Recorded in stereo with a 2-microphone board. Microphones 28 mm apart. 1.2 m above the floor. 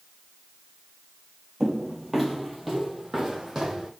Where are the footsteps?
15° left (ahead or behind), 1.3 m; by 3.9 s 5° right (ahead or behind), 2 m.